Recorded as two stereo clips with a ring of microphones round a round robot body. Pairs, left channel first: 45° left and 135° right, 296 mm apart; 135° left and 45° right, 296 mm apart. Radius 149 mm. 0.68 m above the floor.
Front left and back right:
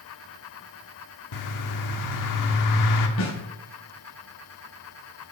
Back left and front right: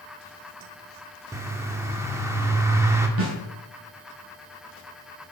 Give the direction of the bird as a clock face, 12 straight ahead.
11 o'clock.